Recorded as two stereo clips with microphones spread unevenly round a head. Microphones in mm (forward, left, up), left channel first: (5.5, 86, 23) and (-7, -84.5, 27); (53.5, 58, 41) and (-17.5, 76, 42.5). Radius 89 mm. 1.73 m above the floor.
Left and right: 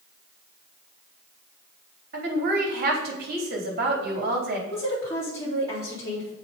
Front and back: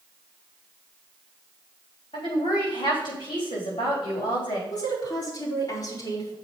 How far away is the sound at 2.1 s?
About 3.5 m.